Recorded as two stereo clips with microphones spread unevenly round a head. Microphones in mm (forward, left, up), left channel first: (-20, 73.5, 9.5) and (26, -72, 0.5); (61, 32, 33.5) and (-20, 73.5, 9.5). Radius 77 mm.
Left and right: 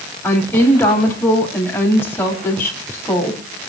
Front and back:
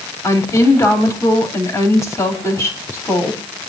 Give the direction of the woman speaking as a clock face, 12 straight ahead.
11 o'clock.